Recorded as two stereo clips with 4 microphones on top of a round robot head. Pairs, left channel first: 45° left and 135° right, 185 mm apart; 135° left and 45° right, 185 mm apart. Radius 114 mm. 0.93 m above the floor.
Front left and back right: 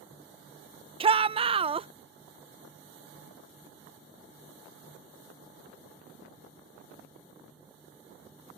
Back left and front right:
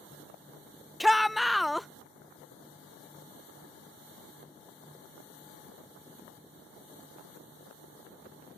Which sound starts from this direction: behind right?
A shout, at 1.0 s.